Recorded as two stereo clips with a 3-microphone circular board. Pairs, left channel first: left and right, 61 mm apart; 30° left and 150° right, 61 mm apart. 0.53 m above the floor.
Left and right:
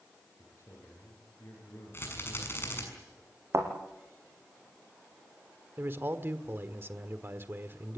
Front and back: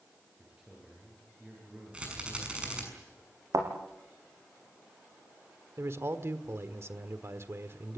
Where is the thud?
130° right, 5 m.